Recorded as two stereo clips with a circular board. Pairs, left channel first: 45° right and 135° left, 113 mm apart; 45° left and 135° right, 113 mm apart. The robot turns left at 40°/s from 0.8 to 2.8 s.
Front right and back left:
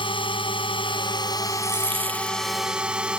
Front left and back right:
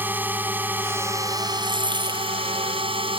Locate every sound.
0.0 s a drone: 65° right; by 3.2 s 145° right
1.6 s a dropped coin: 170° right; by 2.4 s 160° left